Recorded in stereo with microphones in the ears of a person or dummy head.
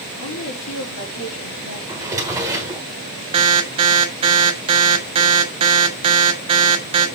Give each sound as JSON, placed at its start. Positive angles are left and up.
{"t": 0.2, "sound": "a woman speaking", "side_deg": 75, "distance_m": 3.5}
{"t": 1.9, "sound": "a drawer", "side_deg": -10, "distance_m": 1.6}
{"t": 3.3, "sound": "an alarm", "side_deg": -25, "distance_m": 1.2}